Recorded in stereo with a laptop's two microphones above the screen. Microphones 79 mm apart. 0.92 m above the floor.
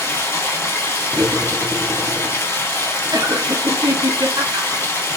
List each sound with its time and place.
0.0 s running water: 35° left (ahead or behind), 1.0 m
1.1 s cutlery clinking: 30° right (ahead or behind), 0.7 m
3.1 s laughter: 70° right (ahead or behind), 1.2 m